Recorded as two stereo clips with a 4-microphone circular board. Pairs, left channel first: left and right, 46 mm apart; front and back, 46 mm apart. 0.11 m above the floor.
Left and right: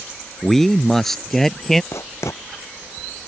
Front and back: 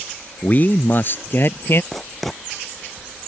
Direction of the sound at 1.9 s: 90° left.